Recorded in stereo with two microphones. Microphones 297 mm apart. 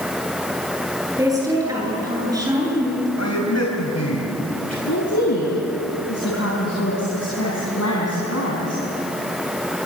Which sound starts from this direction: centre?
A woman speaking, at 1.2 s.